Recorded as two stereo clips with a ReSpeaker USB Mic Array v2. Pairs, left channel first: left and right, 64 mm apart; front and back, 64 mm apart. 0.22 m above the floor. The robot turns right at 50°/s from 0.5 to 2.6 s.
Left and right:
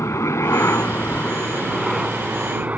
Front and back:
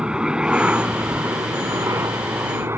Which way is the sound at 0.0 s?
105° left.